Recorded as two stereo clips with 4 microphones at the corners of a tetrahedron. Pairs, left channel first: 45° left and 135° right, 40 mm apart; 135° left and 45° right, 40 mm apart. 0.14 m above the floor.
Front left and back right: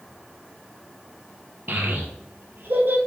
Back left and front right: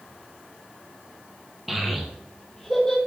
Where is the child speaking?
130° right, 2.5 m; by 3.0 s 150° right, 2.5 m.